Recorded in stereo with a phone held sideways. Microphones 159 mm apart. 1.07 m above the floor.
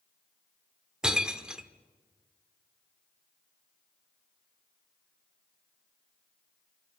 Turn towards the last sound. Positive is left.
turn(degrees=-5)  # may be behind; listen again after turning